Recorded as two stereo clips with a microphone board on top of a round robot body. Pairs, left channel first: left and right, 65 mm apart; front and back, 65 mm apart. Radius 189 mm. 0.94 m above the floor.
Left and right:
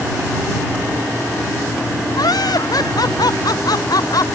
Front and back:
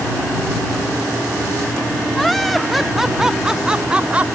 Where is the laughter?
90° left; by 4.3 s 110° left.